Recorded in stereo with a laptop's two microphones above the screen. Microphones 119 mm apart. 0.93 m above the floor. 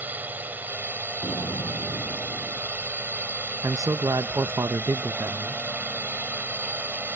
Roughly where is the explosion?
Left.